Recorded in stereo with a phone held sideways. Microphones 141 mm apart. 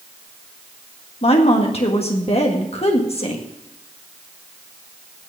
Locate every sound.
1.2 s a woman speaking: 45° left (ahead or behind), 1.7 m